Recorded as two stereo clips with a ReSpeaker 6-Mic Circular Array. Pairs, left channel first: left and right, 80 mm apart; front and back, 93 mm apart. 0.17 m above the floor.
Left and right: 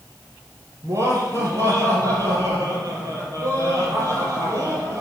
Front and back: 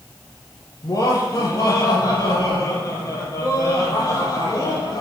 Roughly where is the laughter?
Ahead right.